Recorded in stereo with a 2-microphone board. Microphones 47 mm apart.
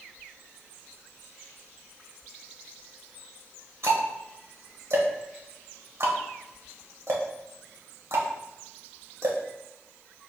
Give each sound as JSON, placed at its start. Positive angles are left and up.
{"t": 3.8, "sound": "ticking", "side_deg": -70, "distance_m": 1.0}